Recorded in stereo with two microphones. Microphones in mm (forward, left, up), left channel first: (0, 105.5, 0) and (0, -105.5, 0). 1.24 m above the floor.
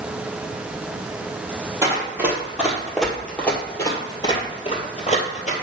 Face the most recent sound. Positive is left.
turn(degrees=40)  # may be behind; listen again after turning